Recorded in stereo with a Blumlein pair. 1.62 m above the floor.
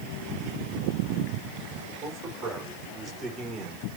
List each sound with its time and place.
2.0 s a man speaking: 25° right, 6 m; by 3.9 s 5° right, 5 m